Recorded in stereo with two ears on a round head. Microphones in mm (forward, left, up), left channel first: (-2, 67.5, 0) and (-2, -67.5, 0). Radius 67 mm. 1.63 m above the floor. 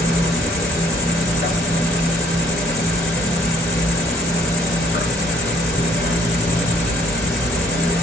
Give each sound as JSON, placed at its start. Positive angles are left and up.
{"t": 0.0, "sound": "an insect", "side_deg": 70, "distance_m": 3.0}